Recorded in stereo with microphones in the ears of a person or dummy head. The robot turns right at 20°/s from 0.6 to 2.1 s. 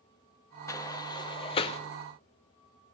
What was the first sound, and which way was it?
A sliding door, 15° left (ahead or behind).